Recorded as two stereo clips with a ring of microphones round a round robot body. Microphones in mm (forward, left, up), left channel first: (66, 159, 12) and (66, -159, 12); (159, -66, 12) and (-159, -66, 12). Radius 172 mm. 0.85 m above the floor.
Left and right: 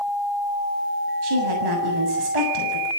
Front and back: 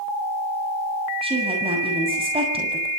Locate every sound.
1.2 s a woman speaking: 105° right, 7 m